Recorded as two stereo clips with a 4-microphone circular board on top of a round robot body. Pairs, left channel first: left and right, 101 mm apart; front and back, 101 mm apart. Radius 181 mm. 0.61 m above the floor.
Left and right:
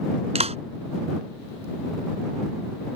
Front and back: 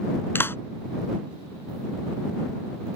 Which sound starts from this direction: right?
A clap, at 0.3 s.